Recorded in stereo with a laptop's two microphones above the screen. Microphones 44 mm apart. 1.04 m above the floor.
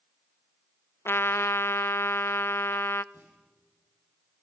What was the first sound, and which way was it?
A trumpet, 75° left (ahead or behind).